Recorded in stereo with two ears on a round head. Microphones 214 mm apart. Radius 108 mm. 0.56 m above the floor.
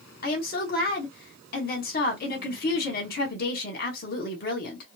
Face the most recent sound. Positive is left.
turn(degrees=40)  # may be behind; listen again after turning